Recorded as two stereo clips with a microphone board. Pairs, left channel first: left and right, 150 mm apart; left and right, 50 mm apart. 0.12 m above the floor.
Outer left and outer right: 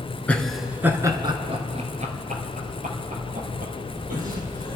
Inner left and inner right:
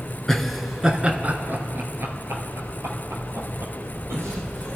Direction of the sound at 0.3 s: 10° left (ahead or behind).